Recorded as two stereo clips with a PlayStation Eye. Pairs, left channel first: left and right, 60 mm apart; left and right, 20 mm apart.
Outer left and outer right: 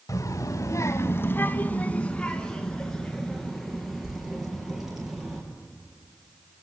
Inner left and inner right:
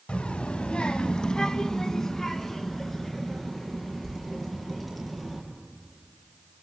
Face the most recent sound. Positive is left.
turn(degrees=-5)  # may be behind; listen again after turning